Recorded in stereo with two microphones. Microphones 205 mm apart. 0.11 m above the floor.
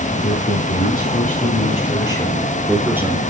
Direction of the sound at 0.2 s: 60° left (ahead or behind).